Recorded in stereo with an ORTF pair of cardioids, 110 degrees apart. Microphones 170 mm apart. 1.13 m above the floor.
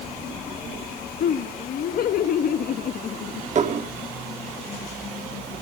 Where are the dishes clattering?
40° right, 1.8 m.